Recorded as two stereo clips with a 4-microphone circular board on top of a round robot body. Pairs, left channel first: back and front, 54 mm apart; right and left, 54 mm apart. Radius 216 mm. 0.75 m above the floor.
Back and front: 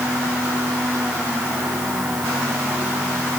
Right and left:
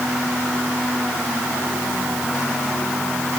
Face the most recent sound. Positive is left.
No sound to turn to.